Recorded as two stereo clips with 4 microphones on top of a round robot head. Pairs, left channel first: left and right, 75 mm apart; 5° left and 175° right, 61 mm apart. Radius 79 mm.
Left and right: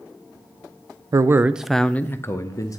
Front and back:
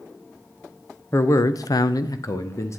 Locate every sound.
1.1 s a man speaking: 45° right, 0.5 m; by 2.8 s 45° left, 1.0 m